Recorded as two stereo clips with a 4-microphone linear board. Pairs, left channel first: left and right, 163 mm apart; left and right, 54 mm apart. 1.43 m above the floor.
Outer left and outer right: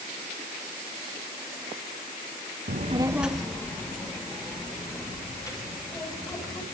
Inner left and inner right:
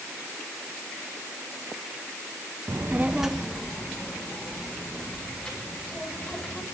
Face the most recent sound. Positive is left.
turn(degrees=25)  # may be behind; listen again after turning